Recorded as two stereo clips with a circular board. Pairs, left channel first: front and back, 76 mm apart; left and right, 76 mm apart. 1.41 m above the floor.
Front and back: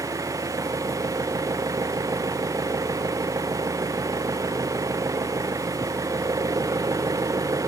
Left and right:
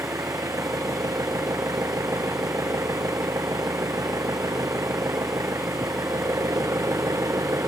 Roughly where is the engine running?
Behind right.